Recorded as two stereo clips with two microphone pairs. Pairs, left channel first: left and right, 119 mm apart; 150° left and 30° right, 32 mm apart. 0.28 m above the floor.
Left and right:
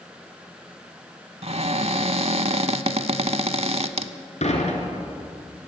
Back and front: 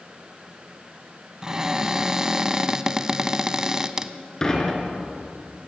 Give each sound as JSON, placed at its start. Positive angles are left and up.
{"t": 1.4, "sound": "a cupboard door", "azimuth_deg": -105, "distance_m": 0.9}
{"t": 4.4, "sound": "dishes clattering", "azimuth_deg": 80, "distance_m": 3.0}